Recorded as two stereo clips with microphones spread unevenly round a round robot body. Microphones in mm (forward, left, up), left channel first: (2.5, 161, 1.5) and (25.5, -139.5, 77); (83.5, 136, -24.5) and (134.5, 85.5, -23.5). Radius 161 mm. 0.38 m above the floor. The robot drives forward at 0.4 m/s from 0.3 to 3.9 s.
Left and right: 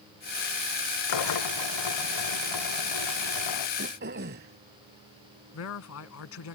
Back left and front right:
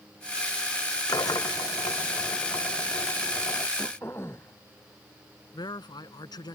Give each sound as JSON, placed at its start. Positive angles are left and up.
{"t": 1.1, "sound": "a drill", "azimuth_deg": 110}
{"t": 3.8, "sound": "throat clearing", "azimuth_deg": -145}
{"t": 5.5, "sound": "a man speaking", "azimuth_deg": 130}